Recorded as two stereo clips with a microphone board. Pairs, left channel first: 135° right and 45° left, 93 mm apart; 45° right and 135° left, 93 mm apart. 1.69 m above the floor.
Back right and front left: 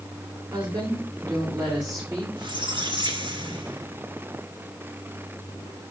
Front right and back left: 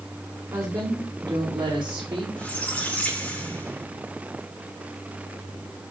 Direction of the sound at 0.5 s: 80° left.